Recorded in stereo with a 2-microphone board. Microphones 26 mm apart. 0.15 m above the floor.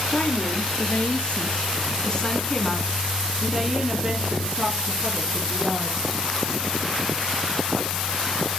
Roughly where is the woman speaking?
Left.